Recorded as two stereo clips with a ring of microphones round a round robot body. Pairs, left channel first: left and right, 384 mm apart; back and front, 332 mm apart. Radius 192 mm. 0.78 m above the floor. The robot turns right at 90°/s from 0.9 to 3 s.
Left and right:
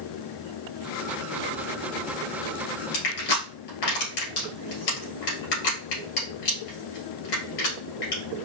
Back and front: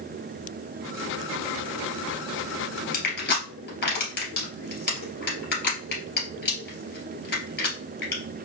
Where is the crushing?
115° left, 2.5 m; by 8.2 s 120° left, 2.5 m.